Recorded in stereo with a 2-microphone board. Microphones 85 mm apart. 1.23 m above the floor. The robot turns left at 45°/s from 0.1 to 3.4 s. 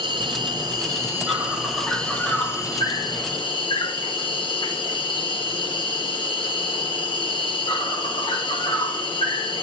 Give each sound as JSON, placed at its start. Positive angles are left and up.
{"t": 0.0, "sound": "an insect", "azimuth_deg": -105, "distance_m": 6.0}